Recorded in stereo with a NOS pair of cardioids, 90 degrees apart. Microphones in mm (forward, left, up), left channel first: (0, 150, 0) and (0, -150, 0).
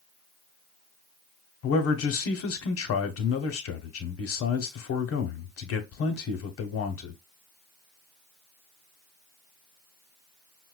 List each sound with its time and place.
1.6 s a man speaking: 50° left, 1.0 m